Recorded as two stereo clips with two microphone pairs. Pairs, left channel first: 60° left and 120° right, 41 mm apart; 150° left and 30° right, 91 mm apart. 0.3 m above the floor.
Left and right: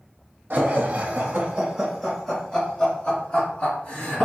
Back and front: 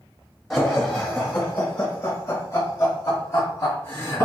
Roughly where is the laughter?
Behind right.